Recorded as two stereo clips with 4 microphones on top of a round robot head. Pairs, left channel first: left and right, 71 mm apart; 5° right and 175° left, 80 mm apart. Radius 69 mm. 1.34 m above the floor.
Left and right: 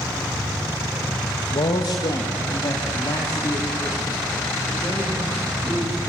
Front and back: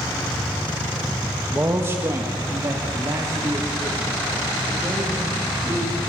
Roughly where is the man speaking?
Left.